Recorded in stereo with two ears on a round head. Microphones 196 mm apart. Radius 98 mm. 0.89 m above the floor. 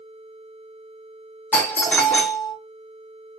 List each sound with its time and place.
1.5 s a doorbell: 5° left (ahead or behind), 1.1 m